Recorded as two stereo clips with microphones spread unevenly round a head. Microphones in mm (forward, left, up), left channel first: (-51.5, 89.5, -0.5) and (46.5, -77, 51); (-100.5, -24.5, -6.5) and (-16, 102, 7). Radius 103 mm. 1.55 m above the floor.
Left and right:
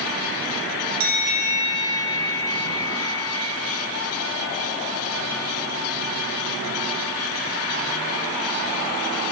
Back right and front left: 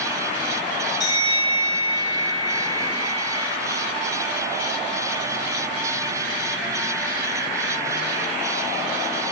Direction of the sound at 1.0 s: 55° right.